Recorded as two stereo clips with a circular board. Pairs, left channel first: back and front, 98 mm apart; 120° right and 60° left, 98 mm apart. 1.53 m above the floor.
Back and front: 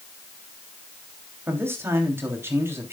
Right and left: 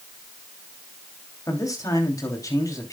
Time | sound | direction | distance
1.5 | a man speaking | 65° right | 3 m